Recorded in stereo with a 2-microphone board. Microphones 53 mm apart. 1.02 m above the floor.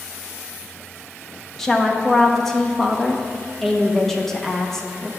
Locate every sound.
1.6 s a woman speaking: 5° left (ahead or behind), 1.1 m